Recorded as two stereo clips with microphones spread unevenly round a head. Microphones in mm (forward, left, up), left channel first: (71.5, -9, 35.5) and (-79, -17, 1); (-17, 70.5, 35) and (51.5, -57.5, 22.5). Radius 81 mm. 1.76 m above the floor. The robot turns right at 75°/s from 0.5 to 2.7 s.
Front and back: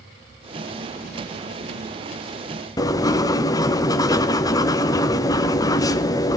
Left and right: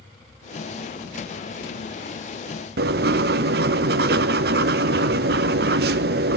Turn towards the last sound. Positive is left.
turn(degrees=-50)